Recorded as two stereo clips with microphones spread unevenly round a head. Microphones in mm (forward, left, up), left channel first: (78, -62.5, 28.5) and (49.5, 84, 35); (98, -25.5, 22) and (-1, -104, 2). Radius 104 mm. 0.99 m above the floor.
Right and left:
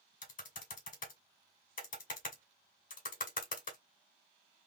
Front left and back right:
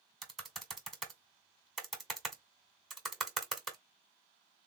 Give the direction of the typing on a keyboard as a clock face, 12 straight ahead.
2 o'clock.